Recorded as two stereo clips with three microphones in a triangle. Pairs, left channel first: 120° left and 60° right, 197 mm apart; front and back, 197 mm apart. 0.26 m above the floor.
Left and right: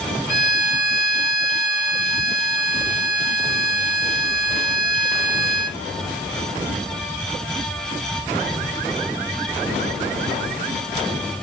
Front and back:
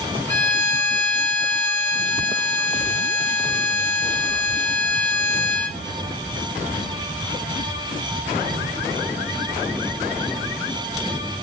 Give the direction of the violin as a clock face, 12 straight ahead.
9 o'clock.